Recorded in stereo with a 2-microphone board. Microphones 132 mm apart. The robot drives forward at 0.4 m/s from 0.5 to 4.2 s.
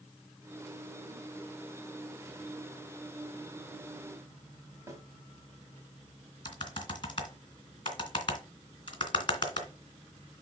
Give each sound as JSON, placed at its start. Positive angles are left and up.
{"t": 4.9, "sound": "a snare drum", "side_deg": -20, "distance_m": 2.0}
{"t": 6.5, "sound": "typing on a keyboard", "side_deg": 40, "distance_m": 2.5}